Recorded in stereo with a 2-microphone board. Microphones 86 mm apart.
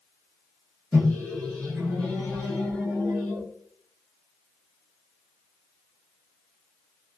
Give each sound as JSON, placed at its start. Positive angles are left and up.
{"t": 0.9, "sound": "a microwave", "side_deg": 5, "distance_m": 1.3}